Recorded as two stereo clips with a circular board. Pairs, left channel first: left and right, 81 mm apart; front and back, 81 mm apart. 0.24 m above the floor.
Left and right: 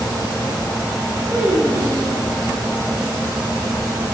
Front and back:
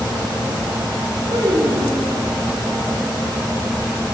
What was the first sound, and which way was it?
A child speaking, 160° right.